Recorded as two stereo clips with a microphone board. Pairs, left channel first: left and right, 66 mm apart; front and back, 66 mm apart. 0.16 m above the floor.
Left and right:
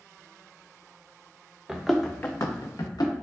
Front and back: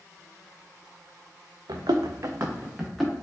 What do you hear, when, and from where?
1.7 s running footsteps: 165° right, 0.7 m; by 3.1 s 90° left, 1.0 m